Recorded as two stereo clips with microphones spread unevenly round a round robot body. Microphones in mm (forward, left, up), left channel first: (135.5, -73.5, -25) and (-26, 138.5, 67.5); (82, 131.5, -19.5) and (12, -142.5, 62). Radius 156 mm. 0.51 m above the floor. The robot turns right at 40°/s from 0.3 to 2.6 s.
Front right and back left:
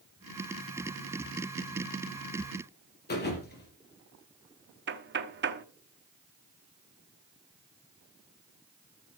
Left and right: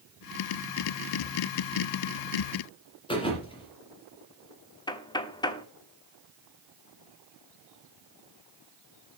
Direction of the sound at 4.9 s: 75° left.